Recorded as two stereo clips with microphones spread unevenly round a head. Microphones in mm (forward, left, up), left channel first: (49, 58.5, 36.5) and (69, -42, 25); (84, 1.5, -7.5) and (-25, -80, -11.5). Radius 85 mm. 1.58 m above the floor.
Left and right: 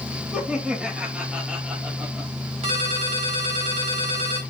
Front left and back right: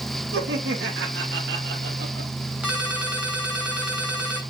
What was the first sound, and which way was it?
Laughter, 165° right.